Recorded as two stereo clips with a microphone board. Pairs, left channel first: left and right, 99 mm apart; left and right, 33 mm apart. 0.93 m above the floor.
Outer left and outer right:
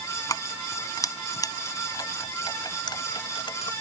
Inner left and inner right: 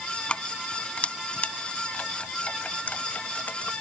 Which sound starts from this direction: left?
Keys jangling, at 0.3 s.